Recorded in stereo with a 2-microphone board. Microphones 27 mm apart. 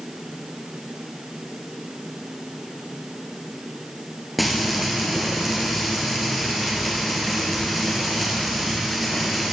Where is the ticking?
I don't hear ticking.